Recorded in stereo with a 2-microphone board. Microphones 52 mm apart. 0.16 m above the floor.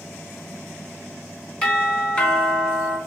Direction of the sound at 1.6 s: 25° left (ahead or behind).